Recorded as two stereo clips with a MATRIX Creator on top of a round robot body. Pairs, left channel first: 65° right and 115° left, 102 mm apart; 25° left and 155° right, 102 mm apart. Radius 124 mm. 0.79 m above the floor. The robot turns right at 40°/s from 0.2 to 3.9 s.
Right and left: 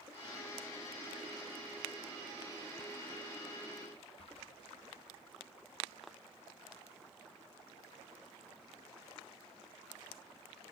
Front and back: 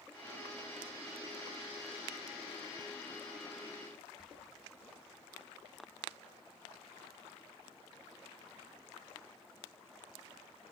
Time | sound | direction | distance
4.2 | whispering | 75° right | 0.6 m